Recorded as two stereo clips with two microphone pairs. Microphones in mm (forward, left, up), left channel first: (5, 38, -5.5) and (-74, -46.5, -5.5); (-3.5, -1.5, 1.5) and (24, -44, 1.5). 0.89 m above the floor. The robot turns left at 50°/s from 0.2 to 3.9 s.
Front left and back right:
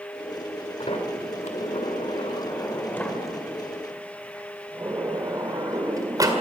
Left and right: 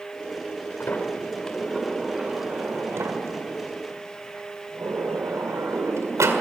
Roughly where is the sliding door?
Left.